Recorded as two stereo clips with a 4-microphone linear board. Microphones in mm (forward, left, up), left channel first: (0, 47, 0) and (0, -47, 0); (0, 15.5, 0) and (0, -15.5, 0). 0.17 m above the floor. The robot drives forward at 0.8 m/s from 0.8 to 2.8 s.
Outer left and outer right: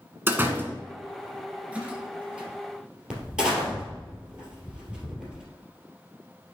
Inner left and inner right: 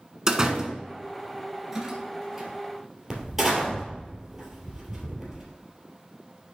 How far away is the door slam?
About 1.0 m.